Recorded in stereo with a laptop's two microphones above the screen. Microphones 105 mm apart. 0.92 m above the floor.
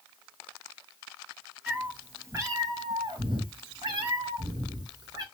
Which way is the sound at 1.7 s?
15° right (ahead or behind).